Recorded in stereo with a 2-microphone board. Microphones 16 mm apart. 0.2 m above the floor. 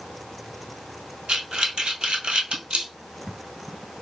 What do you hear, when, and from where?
1.3 s breathing: 85° right, 0.9 m